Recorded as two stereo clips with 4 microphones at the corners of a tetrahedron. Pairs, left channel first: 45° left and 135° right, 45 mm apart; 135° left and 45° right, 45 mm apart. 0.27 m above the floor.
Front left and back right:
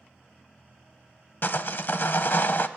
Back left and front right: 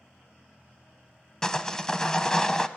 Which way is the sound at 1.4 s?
60° left.